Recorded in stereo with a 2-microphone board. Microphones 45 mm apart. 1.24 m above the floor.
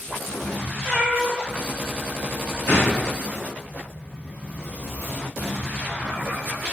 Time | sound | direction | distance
0.8 | a cat meowing | 5° right (ahead or behind) | 1.7 m
2.7 | a gunshot | 55° left (ahead or behind) | 1.0 m